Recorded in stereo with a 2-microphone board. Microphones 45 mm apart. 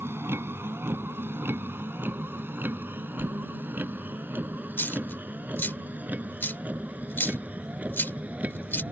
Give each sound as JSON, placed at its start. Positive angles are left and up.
{"t": 0.0, "sound": "a vehicle", "side_deg": -60}
{"t": 3.2, "sound": "a whoosh", "side_deg": -30}
{"t": 4.8, "sound": "a dropped coin", "side_deg": 55}